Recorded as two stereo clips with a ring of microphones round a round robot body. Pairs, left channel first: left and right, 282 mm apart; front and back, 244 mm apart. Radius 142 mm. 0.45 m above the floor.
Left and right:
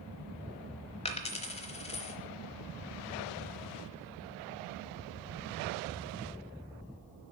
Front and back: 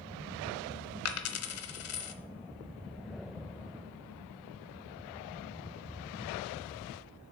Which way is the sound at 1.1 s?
20° left.